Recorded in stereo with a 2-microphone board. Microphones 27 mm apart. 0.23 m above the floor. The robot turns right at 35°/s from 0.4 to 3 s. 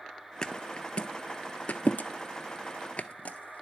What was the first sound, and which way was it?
A thud, 30° left (ahead or behind).